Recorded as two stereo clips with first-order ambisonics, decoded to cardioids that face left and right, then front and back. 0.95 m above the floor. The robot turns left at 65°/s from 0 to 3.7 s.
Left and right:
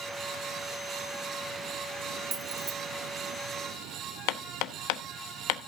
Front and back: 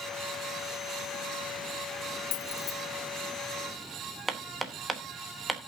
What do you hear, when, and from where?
2.3 s keys jangling: 25° right, 0.7 m; by 2.7 s 50° right, 0.7 m
4.3 s hammering: 100° left, 1.0 m